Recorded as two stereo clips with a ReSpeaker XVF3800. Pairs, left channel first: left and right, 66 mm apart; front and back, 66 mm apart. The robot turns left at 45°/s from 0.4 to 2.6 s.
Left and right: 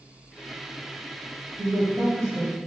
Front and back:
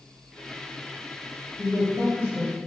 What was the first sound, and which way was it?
A woman speaking, 90° right.